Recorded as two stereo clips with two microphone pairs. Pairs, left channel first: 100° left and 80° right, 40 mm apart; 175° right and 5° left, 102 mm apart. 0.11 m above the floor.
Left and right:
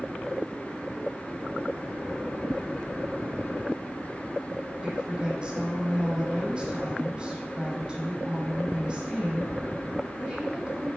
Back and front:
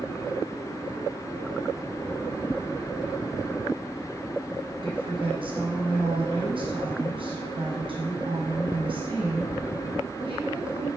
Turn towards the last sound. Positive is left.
turn(degrees=-20)